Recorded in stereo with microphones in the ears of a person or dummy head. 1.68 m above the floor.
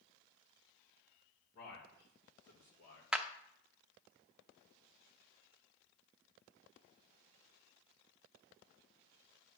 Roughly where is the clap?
Centre.